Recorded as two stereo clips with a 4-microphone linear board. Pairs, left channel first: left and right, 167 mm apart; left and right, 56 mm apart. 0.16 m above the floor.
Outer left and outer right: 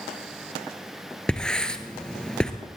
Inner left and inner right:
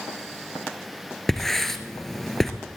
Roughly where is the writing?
Centre.